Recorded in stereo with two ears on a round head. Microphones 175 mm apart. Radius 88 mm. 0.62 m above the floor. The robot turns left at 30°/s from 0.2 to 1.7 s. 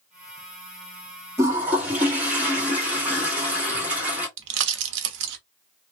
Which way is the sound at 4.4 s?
65° right (ahead or behind).